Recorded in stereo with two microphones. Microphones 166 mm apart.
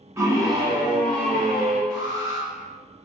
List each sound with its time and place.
0.2 s a scream: 15° right (ahead or behind), 1.1 m; by 1.8 s 40° right (ahead or behind), 1.5 m
1.9 s an alarm: 25° right (ahead or behind), 1.4 m